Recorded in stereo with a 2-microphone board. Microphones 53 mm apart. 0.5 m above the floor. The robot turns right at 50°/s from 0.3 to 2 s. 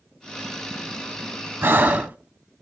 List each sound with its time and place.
1.6 s breathing: 50° right (ahead or behind), 0.5 m; by 2.2 s 35° right (ahead or behind), 0.5 m